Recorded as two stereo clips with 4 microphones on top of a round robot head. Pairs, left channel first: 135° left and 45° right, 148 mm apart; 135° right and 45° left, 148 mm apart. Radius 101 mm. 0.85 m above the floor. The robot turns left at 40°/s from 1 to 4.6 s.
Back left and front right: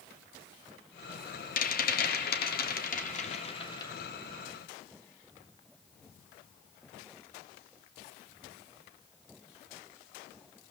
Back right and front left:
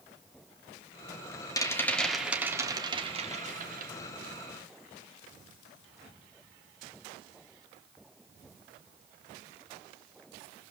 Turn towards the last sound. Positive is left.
turn(degrees=40)